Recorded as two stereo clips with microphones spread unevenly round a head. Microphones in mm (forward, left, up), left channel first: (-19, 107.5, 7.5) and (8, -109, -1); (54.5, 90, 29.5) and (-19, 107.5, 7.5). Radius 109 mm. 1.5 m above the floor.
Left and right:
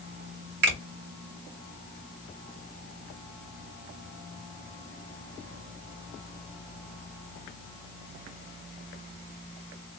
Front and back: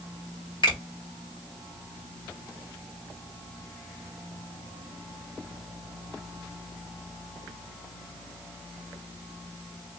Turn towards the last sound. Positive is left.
turn(degrees=-40)